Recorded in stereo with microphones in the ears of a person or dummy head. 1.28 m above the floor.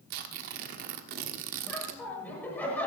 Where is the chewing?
I don't hear chewing.